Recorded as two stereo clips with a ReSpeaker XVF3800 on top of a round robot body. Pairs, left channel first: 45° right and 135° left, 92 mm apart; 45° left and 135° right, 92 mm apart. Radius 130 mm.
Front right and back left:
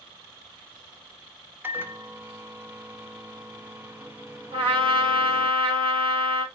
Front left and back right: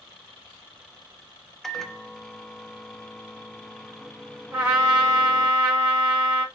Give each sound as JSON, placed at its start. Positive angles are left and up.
{"t": 1.6, "sound": "a microwave", "azimuth_deg": 125, "distance_m": 0.7}
{"t": 4.5, "sound": "a trumpet", "azimuth_deg": 155, "distance_m": 2.0}